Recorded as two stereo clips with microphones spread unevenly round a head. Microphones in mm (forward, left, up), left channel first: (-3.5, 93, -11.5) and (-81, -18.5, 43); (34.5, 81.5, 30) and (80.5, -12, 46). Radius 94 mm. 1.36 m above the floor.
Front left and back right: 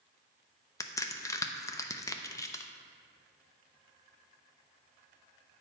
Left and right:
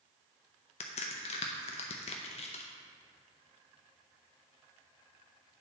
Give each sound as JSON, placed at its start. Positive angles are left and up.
{"t": 0.8, "sound": "a crack", "azimuth_deg": 140, "distance_m": 0.5}